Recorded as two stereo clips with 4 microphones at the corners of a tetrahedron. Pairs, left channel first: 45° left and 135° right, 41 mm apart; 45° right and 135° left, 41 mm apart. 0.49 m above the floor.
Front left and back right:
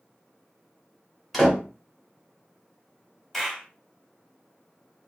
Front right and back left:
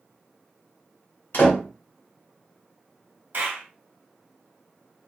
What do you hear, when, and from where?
1.3 s a door slam: 45° right, 1.2 m
3.3 s a clap: 130° left, 1.0 m